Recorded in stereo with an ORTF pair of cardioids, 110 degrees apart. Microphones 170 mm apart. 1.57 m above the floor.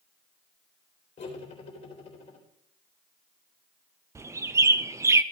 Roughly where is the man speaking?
No man speaking in this recording.